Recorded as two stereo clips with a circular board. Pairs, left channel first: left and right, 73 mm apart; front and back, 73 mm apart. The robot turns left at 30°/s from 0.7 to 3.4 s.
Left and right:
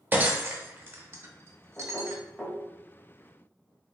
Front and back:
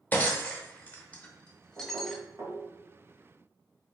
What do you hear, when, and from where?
0.1 s breaking glass: 45° right, 0.6 m; by 2.2 s 90° right, 0.6 m
1.8 s knocking: 165° right, 1.1 m; by 2.6 s 170° left, 1.1 m